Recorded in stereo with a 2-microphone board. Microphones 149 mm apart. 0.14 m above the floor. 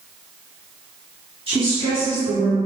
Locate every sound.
1.5 s a woman speaking: 30° right (ahead or behind), 1.7 m; by 2.5 s 10° right (ahead or behind), 1.5 m